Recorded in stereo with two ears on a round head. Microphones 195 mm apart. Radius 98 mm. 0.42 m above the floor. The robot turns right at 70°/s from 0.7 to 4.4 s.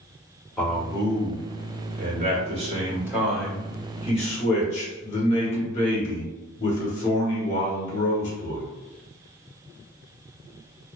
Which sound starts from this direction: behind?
A man speaking, at 0.6 s.